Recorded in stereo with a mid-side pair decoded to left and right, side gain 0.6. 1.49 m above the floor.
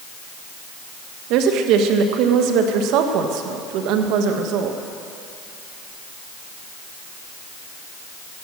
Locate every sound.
1.3 s a woman speaking: 70° right, 1.6 m